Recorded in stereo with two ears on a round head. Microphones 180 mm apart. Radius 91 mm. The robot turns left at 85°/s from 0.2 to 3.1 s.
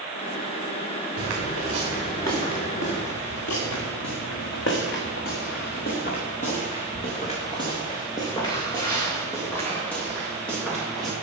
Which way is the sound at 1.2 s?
80° right.